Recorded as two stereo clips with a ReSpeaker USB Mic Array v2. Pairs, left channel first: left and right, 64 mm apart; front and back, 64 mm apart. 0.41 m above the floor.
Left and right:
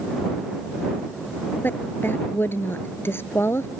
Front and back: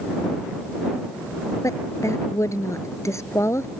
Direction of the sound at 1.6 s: 35° left.